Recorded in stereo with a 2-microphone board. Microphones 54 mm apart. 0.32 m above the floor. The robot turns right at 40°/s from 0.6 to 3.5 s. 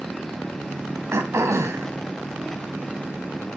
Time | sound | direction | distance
1.1 | throat clearing | 110° right | 2.5 m